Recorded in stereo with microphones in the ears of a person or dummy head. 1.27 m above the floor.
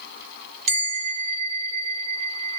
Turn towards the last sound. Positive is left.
turn(degrees=-55)  # may be behind; listen again after turning